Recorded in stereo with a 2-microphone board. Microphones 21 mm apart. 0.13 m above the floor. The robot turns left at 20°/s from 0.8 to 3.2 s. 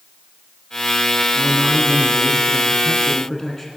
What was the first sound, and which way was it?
A man speaking, centre (ahead or behind).